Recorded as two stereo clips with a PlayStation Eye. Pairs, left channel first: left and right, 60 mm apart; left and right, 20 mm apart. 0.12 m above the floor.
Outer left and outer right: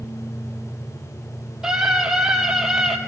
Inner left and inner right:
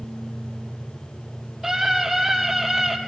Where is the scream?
10° right (ahead or behind), 4.5 m.